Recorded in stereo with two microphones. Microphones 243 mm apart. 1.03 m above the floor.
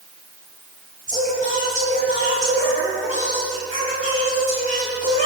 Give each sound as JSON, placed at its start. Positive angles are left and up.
{"t": 1.1, "sound": "singing", "side_deg": -30, "distance_m": 7.0}